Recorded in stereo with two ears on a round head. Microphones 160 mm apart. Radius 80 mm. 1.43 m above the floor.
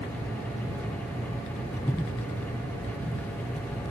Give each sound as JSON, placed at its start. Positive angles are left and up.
{"t": 1.8, "sound": "breathing", "side_deg": 15}